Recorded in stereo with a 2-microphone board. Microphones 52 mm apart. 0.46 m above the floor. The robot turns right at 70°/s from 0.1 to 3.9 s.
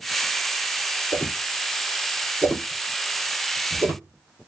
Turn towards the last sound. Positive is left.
turn(degrees=-65)  # may be behind; listen again after turning